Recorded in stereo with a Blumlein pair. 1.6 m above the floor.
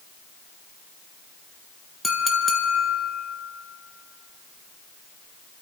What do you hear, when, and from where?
2.0 s a clink: 5° left, 1.4 m